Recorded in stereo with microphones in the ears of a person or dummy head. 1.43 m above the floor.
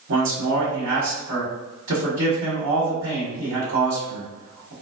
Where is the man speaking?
70° right (ahead or behind), 1.3 m.